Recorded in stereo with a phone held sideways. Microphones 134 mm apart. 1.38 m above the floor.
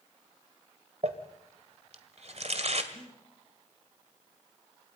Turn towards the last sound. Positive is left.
turn(degrees=-40)  # may be behind; listen again after turning